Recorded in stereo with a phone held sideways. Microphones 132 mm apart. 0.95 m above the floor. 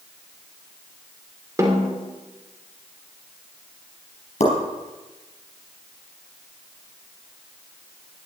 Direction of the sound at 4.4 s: 55° left (ahead or behind).